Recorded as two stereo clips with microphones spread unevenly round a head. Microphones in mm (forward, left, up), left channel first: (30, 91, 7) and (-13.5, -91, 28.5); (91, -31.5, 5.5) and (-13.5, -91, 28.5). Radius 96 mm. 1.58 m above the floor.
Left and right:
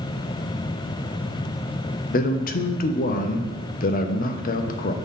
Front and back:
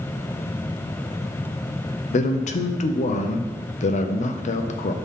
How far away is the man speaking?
About 0.7 m.